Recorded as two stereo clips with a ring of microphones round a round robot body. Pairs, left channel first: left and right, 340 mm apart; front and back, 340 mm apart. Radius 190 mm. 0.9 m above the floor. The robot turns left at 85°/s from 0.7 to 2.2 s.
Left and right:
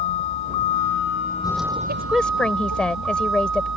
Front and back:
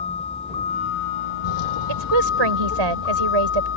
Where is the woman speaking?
155° right; by 3.7 s 175° left.